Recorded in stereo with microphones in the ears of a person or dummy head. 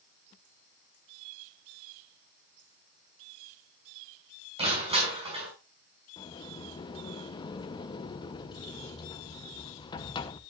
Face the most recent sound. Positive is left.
turn(degrees=35)  # may be behind; listen again after turning